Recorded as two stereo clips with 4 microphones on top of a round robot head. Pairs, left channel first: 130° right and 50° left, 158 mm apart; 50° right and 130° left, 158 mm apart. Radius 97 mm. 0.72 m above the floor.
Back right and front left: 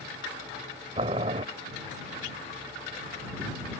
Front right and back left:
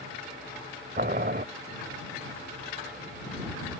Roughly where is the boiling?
Left.